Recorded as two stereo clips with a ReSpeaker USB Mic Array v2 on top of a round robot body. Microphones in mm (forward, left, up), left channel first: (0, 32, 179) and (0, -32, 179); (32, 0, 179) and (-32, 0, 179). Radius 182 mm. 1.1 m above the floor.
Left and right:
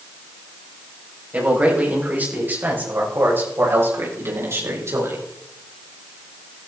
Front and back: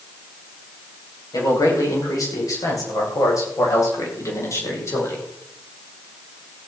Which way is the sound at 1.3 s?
20° right.